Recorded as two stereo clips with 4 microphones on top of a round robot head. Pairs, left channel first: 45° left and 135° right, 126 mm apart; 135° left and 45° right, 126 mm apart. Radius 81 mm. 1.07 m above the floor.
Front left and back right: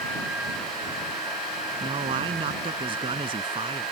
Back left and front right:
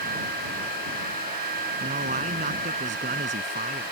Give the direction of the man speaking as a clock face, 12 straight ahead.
3 o'clock.